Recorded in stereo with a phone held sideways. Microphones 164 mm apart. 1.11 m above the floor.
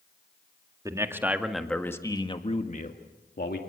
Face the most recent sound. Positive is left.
turn(degrees=70)  # may be behind; listen again after turning